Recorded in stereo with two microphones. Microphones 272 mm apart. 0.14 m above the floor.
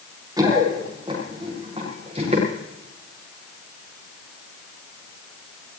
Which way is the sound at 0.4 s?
15° right (ahead or behind).